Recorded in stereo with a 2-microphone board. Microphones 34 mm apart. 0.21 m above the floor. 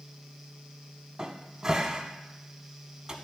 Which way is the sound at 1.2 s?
15° right (ahead or behind).